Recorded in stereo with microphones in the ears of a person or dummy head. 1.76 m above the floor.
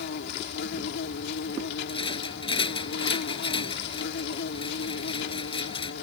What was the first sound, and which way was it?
An insect, 65° left (ahead or behind).